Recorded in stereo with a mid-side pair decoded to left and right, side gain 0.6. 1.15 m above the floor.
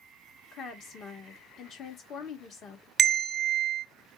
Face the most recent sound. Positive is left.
turn(degrees=-25)